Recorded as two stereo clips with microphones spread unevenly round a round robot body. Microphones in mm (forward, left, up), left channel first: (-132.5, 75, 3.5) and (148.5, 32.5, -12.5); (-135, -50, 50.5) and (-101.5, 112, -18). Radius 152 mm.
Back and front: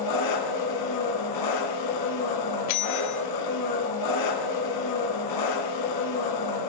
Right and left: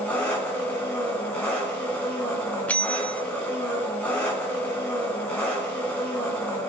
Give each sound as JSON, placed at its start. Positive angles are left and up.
{"t": 0.0, "sound": "an engine running", "azimuth_deg": 180, "distance_m": 3.5}
{"t": 2.7, "sound": "a bell", "azimuth_deg": 165, "distance_m": 1.2}